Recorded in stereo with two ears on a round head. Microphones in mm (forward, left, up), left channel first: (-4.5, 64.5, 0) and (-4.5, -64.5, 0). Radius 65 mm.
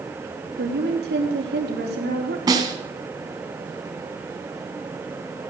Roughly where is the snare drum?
Right.